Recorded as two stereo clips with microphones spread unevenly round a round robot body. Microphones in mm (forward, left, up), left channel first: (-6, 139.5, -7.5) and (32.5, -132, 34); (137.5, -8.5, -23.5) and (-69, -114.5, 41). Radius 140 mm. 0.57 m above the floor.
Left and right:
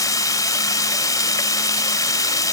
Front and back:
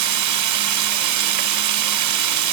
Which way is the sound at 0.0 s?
175° left.